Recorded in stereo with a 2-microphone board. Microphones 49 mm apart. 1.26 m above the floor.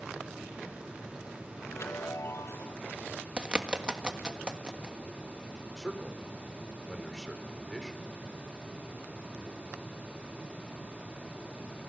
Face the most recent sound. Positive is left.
turn(degrees=5)  # may be behind; listen again after turning